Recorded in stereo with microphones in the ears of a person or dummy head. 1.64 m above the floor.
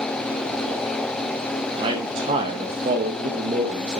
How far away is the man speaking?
About 1.2 m.